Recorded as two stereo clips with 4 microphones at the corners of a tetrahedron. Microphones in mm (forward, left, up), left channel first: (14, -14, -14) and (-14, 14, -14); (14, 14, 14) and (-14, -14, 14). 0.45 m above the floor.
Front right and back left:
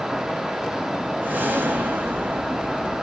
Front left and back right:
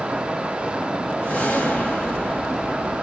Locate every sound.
1.2 s a whoosh: 95° left, 1.5 m